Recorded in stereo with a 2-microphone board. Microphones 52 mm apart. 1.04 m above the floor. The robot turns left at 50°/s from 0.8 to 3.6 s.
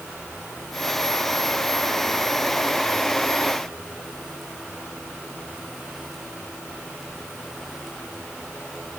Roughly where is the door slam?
No door slam in this recording.